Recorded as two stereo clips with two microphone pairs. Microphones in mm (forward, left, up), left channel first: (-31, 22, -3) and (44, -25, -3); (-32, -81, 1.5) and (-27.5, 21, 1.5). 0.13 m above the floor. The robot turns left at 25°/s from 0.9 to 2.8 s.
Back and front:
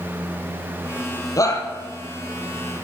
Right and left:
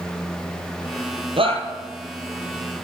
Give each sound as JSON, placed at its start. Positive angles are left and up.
{"t": 1.4, "sound": "a shout", "azimuth_deg": 105, "distance_m": 3.5}